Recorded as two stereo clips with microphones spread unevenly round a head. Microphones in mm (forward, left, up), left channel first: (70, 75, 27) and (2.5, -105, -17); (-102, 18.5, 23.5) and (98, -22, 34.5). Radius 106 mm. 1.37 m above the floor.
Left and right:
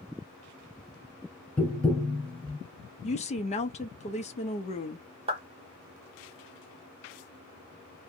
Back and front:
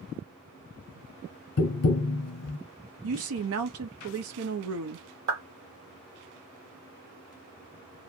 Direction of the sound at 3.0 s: 10° left.